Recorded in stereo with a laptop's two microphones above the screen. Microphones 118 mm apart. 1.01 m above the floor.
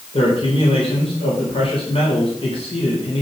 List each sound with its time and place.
0.1 s a man speaking: 55° left (ahead or behind), 3.5 m